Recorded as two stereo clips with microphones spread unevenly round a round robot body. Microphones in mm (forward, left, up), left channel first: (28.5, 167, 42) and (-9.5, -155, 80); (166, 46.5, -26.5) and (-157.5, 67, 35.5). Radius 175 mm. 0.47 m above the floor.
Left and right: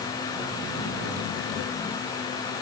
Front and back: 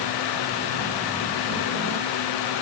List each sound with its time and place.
Only background noise.